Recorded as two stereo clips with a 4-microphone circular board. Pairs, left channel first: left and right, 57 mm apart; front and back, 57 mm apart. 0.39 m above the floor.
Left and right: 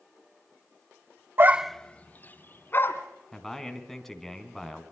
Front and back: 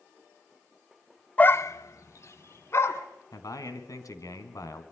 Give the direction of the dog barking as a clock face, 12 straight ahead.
2 o'clock.